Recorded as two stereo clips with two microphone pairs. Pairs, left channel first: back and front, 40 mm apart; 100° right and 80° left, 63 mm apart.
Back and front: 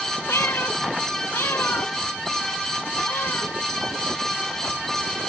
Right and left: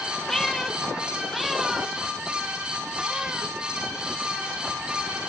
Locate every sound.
0.3 s a cat meowing: straight behind; by 3.5 s 160° left